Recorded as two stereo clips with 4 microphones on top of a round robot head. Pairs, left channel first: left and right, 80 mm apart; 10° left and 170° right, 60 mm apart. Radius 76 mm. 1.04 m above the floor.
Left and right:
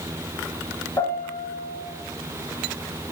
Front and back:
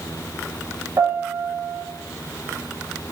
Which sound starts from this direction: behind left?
A piano, at 1.0 s.